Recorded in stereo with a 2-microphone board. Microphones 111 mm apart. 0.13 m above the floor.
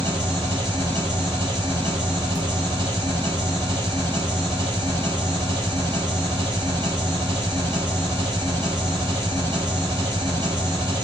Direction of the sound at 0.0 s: 40° right (ahead or behind).